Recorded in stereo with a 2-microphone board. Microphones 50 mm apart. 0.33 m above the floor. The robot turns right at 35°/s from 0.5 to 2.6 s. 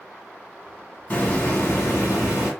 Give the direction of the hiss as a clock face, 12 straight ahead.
11 o'clock.